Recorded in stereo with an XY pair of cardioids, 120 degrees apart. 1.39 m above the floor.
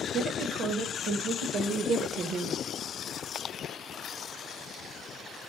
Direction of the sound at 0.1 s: 55° right.